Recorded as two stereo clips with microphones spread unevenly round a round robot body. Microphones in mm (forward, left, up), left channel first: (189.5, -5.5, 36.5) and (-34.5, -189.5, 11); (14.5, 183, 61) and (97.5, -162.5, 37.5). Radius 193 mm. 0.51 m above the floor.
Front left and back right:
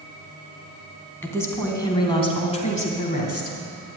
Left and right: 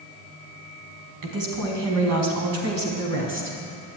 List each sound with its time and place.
1.2 s a woman speaking: 45° right, 4 m; by 3.6 s 20° right, 4 m